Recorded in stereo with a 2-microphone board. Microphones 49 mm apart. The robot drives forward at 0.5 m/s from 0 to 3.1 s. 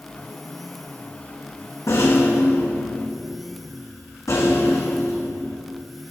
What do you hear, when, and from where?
1.9 s a rattle: 75° left (ahead or behind), 3.5 m; by 5.6 s 85° left, 3 m